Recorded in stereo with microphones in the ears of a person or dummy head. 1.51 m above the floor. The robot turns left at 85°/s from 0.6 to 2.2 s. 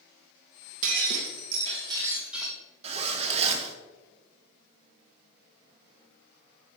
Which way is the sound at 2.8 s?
30° right (ahead or behind).